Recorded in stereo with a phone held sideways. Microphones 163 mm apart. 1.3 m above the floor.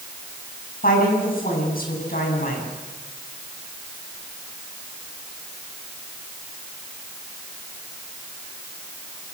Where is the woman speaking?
60° left (ahead or behind), 9 m.